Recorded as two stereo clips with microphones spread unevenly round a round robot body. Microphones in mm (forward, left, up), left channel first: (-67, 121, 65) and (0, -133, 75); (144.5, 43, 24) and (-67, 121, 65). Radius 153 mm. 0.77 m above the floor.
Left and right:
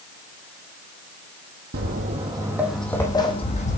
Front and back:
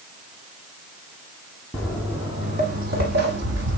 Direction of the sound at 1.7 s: 115° right.